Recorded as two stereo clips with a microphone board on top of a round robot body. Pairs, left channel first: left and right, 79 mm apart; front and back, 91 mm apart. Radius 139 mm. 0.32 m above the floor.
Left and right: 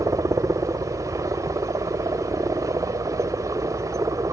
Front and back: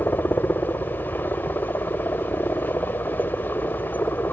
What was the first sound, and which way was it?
A helicopter, 60° right.